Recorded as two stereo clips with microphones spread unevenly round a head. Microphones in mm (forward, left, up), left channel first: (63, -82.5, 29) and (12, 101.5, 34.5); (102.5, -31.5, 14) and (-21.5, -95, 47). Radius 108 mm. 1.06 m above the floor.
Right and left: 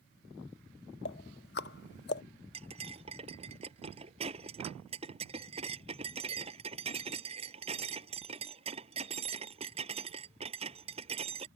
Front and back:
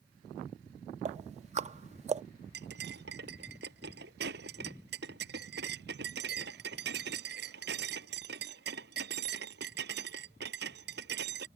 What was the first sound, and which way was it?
Ticking, 120° right.